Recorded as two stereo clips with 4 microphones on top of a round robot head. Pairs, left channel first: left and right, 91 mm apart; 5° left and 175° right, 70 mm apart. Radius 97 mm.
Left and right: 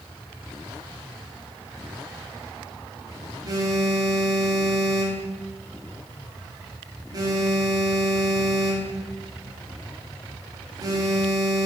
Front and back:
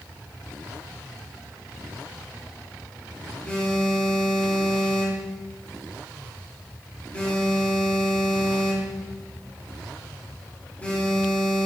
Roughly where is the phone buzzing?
Ahead right.